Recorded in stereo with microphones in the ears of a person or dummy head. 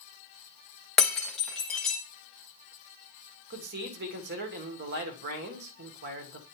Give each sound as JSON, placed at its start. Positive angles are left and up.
{"t": 1.0, "sound": "breaking glass", "side_deg": 0, "distance_m": 1.3}
{"t": 3.5, "sound": "a man speaking", "side_deg": -60, "distance_m": 1.4}